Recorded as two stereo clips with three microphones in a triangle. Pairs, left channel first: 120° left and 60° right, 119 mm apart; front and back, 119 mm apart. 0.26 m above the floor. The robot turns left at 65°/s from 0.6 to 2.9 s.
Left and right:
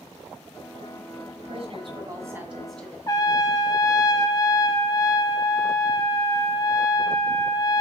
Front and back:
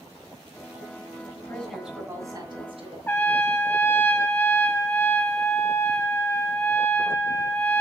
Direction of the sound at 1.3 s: 65° right.